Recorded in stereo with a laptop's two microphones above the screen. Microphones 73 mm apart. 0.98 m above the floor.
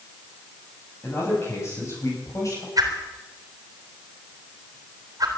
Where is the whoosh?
55° right (ahead or behind), 3.5 m.